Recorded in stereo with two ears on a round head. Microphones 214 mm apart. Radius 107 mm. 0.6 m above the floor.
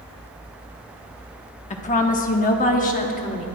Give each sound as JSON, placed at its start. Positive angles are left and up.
{"t": 1.7, "sound": "a woman speaking", "side_deg": 30, "distance_m": 1.1}